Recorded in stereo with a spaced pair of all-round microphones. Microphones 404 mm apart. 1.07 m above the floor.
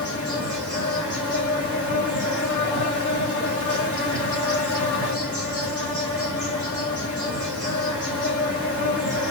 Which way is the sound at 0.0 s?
45° left (ahead or behind).